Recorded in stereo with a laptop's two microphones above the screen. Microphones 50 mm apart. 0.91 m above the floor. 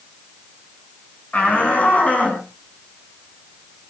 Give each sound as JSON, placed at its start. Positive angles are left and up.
{"t": 1.3, "sound": "a shout", "side_deg": 30, "distance_m": 7.5}